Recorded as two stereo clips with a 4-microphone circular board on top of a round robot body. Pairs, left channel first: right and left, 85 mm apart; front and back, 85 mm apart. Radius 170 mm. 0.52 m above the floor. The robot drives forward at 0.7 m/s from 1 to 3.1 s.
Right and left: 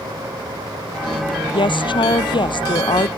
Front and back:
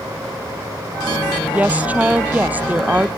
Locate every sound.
1.5 s a woman speaking: 105° right; by 3.1 s 110° right